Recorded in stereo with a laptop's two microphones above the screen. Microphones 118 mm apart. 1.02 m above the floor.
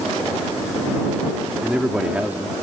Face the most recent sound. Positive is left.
turn(degrees=-20)  # may be behind; listen again after turning